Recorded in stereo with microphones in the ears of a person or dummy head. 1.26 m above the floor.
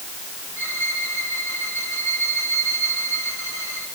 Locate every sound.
0.6 s a violin: 5° right (ahead or behind), 7.5 m